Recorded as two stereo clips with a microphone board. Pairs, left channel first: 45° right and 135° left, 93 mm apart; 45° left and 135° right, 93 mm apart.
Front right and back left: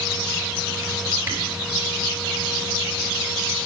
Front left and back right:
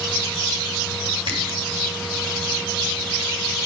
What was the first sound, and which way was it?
A camera shutter, 160° right.